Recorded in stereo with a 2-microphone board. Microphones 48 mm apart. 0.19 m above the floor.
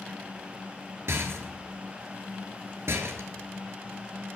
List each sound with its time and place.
1.1 s a rattle: 65° right (ahead or behind), 1.2 m